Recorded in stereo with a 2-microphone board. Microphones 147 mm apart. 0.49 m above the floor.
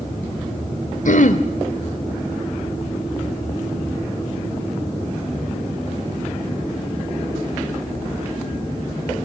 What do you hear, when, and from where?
1.1 s throat clearing: 65° left (ahead or behind), 1.3 m